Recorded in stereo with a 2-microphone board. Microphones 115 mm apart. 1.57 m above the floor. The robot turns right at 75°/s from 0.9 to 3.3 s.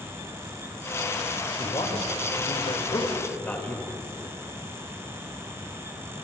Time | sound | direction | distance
1.6 | a man speaking | 35° left | 2 m